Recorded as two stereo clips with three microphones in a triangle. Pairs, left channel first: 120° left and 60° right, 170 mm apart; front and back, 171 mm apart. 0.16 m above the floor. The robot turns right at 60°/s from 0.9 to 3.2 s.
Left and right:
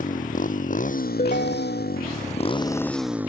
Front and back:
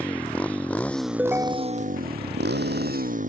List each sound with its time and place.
0.0 s a motorcycle: 80° left; by 3.3 s 140° right
1.2 s a ringtone: 95° left; by 2.0 s 145° left